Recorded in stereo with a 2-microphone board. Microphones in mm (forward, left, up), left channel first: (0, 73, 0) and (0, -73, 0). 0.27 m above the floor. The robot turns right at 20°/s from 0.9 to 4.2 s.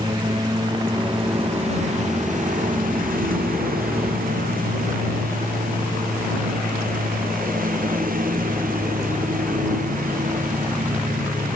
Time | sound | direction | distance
0.0 | a lawn mower | 30° right (ahead or behind) | ?